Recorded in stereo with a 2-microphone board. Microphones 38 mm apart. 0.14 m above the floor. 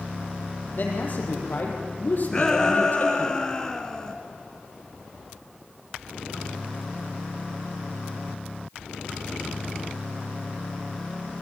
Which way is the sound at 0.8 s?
50° left (ahead or behind).